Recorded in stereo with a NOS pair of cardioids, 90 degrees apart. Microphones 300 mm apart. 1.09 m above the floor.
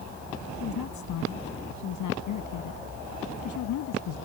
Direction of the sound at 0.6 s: 70° left.